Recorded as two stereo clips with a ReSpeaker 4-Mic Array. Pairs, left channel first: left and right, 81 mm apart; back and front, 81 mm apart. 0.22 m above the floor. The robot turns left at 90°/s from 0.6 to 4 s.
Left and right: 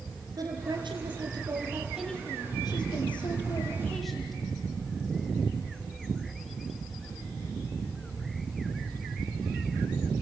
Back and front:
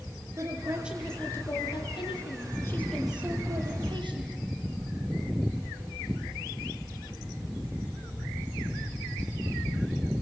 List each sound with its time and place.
0.4 s a woman speaking: 50° right, 5 m; by 4.4 s straight ahead, 5 m